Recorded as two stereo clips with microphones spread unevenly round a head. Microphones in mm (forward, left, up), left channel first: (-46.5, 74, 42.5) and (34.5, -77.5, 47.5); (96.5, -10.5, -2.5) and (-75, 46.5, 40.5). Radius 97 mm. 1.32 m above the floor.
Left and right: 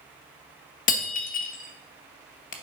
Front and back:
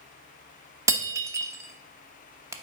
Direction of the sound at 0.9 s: 120° left.